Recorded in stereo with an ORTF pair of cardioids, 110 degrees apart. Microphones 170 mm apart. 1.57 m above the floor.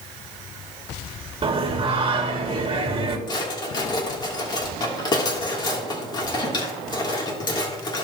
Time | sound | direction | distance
1.4 | singing | 30° right | 2 m
3.3 | a drawer | 25° left | 3 m